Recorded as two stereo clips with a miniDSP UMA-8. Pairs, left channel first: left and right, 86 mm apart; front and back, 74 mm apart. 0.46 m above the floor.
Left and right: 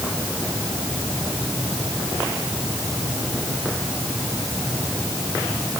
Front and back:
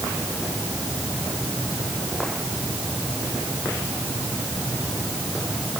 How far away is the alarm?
No alarm in this recording.